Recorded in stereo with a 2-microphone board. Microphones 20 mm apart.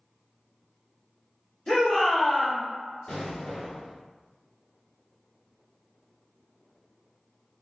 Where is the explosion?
50° left (ahead or behind), 1.1 m.